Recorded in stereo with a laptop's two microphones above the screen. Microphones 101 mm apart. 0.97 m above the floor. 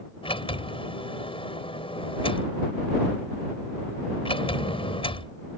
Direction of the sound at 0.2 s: 65° left (ahead or behind).